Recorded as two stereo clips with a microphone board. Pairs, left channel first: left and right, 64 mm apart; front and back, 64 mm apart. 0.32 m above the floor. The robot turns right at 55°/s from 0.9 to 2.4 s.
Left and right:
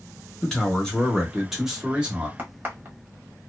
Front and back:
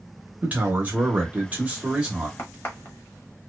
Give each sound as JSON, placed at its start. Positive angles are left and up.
{"t": 0.4, "sound": "a man speaking", "azimuth_deg": 155, "distance_m": 0.9}
{"t": 2.4, "sound": "a crack", "azimuth_deg": -35, "distance_m": 1.2}